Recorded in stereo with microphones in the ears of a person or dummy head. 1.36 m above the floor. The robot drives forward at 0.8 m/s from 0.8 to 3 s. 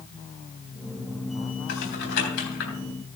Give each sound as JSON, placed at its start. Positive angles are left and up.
{"t": 1.7, "sound": "typing on a keyboard", "side_deg": 70, "distance_m": 4.5}